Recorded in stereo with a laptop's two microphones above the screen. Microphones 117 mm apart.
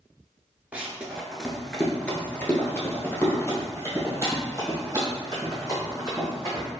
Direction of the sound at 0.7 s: 10° right (ahead or behind).